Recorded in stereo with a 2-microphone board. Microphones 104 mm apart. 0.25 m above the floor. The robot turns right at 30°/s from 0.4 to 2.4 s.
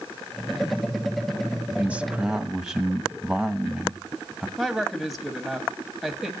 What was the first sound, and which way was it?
A man speaking, 20° right (ahead or behind).